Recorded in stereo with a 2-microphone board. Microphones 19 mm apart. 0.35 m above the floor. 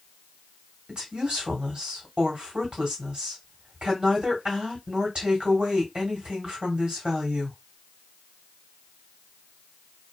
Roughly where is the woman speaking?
Right.